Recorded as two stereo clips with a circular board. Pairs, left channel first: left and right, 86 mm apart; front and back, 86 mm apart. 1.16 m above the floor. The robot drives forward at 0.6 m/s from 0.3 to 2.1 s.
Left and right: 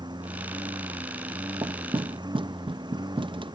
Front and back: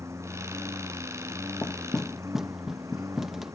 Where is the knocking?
65° right; by 3.5 s 95° right.